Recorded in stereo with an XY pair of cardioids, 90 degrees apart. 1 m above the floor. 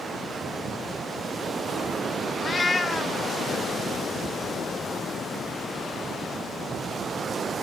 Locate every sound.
2.4 s a cat meowing: 35° left, 0.5 m